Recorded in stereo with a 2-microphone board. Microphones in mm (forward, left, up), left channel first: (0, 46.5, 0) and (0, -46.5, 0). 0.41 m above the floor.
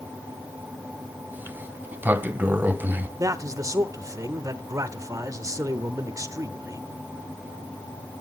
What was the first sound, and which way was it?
A sliding door, 20° right (ahead or behind).